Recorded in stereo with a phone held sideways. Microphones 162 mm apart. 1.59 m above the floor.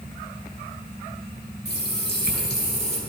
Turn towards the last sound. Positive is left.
turn(degrees=85)